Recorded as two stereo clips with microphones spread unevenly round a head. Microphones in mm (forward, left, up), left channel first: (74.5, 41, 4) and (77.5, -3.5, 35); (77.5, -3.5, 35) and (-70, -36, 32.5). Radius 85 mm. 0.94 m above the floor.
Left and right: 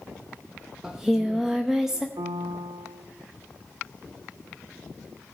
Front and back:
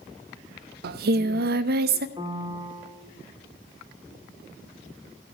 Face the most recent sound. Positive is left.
turn(degrees=-105)